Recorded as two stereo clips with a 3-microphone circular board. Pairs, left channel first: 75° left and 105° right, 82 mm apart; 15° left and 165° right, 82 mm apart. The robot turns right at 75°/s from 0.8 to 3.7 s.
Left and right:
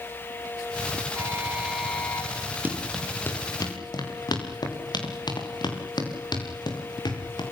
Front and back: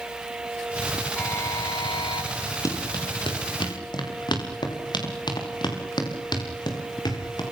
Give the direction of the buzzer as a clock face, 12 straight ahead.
2 o'clock.